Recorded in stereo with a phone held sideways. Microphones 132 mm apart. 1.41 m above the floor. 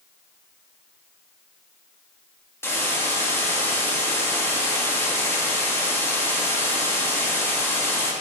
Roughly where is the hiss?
Centre.